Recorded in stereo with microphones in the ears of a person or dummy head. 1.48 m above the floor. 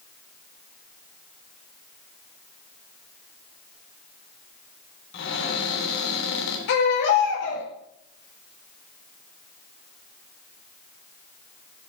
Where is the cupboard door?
60° left (ahead or behind), 3 m.